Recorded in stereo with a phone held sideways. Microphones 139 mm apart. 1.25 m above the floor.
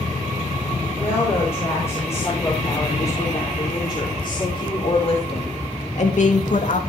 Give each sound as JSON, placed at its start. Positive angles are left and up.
{"t": 0.9, "sound": "a woman speaking", "side_deg": 15, "distance_m": 6.0}